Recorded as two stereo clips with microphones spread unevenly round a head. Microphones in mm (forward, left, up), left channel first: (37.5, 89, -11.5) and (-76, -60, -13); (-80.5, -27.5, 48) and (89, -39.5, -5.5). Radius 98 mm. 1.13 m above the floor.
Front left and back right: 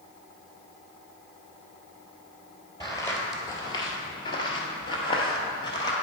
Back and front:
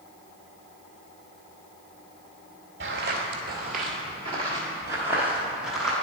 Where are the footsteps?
10° right, 1.3 m; by 5.9 s 110° left, 1.5 m.